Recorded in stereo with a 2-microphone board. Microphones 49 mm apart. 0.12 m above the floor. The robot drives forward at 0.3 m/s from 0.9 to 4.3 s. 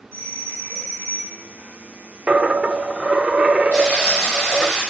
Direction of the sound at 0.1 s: 60° left (ahead or behind).